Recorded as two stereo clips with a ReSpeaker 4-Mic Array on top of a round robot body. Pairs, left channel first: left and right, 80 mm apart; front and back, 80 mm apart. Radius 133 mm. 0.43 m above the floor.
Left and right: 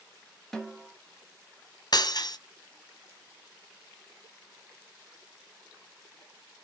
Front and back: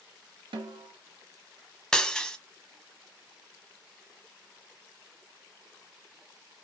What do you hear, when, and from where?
0.5 s a snare drum: 175° left, 0.8 m
1.9 s breaking glass: 80° left, 0.9 m